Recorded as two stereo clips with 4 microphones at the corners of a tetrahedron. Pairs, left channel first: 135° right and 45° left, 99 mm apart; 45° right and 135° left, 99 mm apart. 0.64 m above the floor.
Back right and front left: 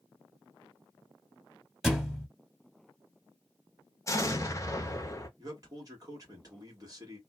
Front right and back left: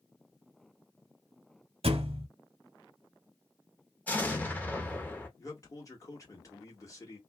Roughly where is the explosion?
Right.